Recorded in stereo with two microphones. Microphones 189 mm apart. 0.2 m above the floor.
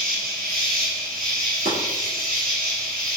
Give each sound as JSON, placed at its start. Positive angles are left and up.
{"t": 0.0, "sound": "an insect", "side_deg": -50, "distance_m": 1.2}
{"t": 1.6, "sound": "chopping", "side_deg": -60, "distance_m": 1.8}